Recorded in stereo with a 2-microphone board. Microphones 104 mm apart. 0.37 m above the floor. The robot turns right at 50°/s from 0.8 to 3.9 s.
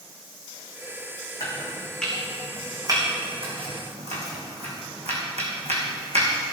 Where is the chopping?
35° left (ahead or behind), 4 m; by 6.3 s 85° right, 4 m.